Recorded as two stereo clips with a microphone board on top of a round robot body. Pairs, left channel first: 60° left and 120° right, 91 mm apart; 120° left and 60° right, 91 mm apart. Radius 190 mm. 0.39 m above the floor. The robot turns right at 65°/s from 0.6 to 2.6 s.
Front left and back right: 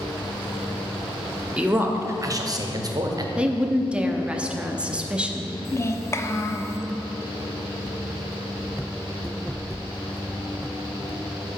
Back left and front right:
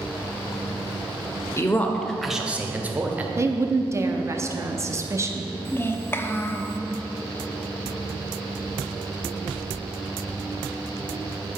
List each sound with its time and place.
1.6 s a man speaking: 165° left, 1.1 m; by 3.3 s 125° right, 1.1 m
3.4 s a woman speaking: 55° right, 0.9 m
5.7 s a child speaking: 80° left, 0.8 m